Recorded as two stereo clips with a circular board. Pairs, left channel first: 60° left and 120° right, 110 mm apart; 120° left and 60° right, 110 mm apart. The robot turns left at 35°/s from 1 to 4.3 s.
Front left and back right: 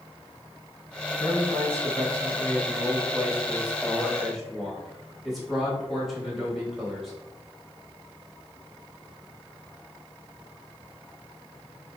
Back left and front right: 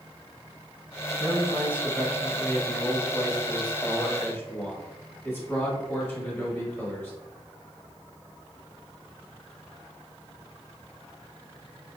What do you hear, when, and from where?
1.2 s a man speaking: 100° right, 1.2 m; by 7.1 s 155° left, 1.2 m